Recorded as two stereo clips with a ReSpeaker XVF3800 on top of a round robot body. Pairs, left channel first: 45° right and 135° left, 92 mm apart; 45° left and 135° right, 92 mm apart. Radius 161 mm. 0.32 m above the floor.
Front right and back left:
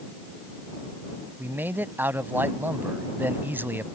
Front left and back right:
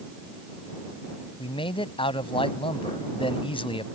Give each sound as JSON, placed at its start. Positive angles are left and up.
{"t": 1.4, "sound": "a man speaking", "azimuth_deg": 65}